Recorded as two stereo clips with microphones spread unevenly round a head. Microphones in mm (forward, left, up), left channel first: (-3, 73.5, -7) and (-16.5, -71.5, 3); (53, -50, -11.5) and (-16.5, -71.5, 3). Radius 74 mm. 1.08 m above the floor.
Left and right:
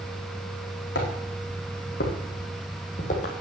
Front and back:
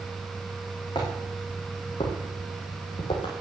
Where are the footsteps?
75° left, 4 m; by 3.3 s 40° left, 2.5 m.